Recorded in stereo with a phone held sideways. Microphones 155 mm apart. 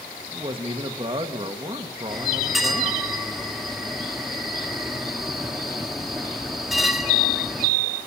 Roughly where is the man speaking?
Right.